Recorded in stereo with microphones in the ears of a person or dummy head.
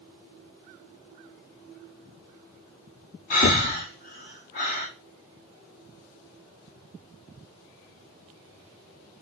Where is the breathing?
30° left (ahead or behind), 0.9 m.